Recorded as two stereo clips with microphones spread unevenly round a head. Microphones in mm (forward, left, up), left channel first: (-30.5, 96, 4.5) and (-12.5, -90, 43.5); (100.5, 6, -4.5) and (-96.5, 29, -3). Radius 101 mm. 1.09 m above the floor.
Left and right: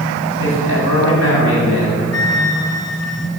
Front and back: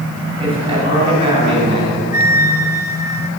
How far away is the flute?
About 2.5 m.